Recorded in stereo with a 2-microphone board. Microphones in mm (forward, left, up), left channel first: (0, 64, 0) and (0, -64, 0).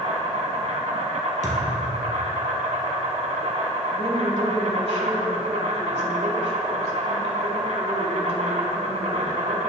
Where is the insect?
65° right (ahead or behind), 1.7 m.